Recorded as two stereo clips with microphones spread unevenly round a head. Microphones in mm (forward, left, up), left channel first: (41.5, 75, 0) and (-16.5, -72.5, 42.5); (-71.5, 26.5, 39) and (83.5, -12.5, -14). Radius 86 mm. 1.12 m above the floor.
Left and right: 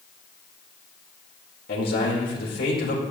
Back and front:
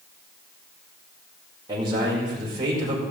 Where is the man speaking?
50° left, 5 m.